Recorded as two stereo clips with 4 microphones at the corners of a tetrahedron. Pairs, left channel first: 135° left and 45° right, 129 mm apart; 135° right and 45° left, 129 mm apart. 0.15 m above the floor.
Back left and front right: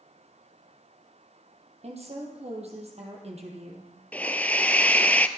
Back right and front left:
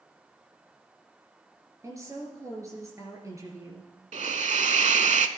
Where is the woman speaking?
20° right, 2.5 m.